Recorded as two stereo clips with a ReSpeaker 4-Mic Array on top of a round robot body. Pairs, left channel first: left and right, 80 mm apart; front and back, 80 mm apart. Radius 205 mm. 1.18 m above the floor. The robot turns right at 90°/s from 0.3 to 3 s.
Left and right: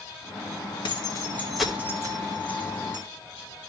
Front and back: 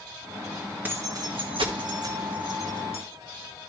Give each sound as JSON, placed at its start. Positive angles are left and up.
{"t": 0.8, "sound": "keys jangling", "azimuth_deg": 110, "distance_m": 1.6}